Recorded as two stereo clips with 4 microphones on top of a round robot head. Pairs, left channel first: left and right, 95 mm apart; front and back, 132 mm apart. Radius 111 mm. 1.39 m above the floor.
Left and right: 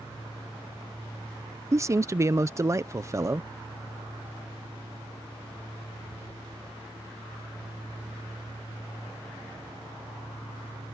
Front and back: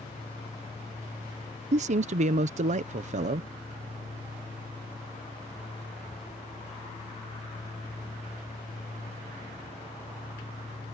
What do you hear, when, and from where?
1.7 s a man speaking: 150° right